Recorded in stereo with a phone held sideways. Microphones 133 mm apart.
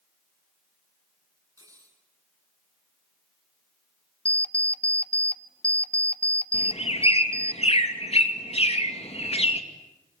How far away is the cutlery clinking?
About 9.5 m.